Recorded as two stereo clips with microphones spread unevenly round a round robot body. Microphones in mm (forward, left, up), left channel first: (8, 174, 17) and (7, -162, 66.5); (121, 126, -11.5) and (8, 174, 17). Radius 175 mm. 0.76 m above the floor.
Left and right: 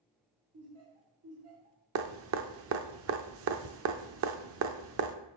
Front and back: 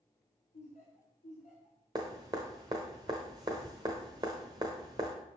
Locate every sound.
0.5 s laughter: 40° right, 2.5 m
1.9 s dripping: 135° right, 0.7 m